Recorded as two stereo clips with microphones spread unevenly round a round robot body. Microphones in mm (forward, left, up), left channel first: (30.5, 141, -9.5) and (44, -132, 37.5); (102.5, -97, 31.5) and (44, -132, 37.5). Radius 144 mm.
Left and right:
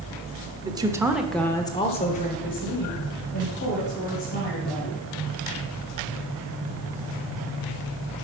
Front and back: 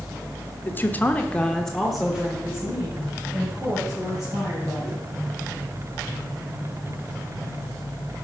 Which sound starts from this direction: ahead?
A woman speaking, at 0.6 s.